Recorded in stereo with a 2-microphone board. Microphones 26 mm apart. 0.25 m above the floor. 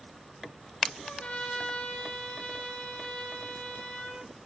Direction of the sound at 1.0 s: 80° left.